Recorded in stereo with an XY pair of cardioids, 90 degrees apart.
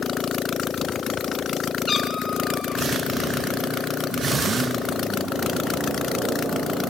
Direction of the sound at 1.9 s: 40° left.